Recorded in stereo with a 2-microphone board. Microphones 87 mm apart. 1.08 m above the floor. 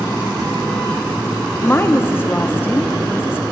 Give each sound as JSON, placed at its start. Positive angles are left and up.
{"t": 1.6, "sound": "a woman speaking", "side_deg": 25, "distance_m": 0.7}